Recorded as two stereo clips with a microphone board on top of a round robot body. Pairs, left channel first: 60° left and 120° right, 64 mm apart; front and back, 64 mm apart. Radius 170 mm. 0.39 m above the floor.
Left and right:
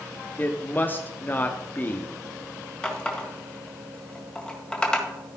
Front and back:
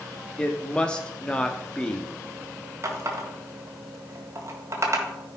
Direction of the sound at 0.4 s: 60° left.